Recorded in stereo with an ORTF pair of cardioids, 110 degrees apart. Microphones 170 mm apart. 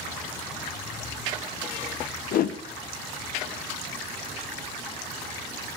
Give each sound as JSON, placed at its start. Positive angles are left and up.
{"t": 2.3, "sound": "a whoosh", "azimuth_deg": 60, "distance_m": 1.0}